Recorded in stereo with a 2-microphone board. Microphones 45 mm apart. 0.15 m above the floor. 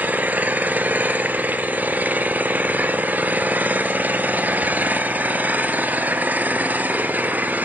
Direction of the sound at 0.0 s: 35° right (ahead or behind).